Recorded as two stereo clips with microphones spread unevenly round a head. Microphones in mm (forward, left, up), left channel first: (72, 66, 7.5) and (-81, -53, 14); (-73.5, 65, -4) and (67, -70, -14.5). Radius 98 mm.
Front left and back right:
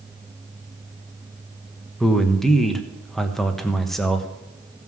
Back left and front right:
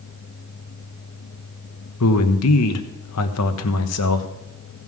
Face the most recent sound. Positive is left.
turn(degrees=125)